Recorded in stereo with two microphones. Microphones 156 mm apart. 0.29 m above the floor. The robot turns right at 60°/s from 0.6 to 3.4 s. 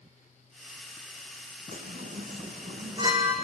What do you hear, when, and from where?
1.7 s a chime: 75° right (ahead or behind), 3 m; by 3.3 s 10° right (ahead or behind), 3 m